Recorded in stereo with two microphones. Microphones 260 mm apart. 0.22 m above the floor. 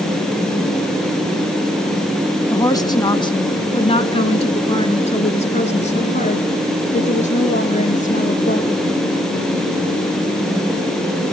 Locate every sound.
2.5 s a woman speaking: 10° left (ahead or behind), 2 m; by 8.8 s 30° left (ahead or behind), 6 m